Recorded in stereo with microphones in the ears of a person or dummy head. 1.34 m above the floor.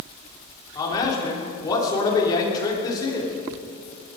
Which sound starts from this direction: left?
A man speaking, at 0.8 s.